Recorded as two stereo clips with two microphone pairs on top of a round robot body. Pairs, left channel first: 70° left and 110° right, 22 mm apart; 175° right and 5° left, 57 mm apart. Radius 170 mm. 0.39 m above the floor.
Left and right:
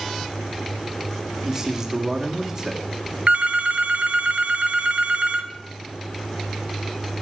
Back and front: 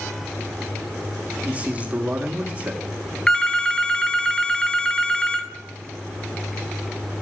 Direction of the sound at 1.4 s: 45° right.